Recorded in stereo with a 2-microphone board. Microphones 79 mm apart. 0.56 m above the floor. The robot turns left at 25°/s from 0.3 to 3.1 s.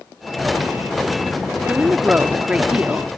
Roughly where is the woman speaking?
Right.